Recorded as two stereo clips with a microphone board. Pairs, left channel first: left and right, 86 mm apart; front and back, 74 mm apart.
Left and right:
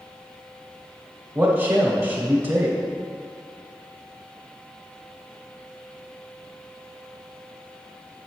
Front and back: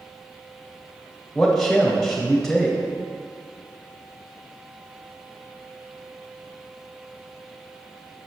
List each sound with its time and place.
1.4 s a man speaking: 80° right, 1.0 m